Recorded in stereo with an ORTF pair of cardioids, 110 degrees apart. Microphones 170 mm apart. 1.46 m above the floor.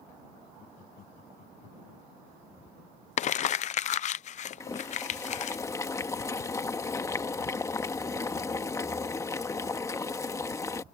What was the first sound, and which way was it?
Laughter, 60° left.